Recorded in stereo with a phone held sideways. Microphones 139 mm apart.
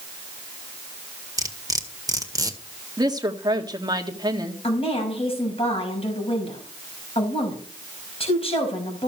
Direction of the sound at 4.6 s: 40° left (ahead or behind).